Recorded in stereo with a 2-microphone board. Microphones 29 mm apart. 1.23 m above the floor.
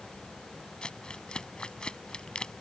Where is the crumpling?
30° left (ahead or behind).